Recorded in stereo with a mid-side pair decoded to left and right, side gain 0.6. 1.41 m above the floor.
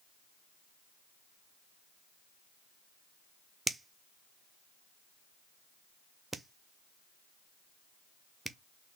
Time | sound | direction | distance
3.7 | a finger snap | 15° right | 0.5 m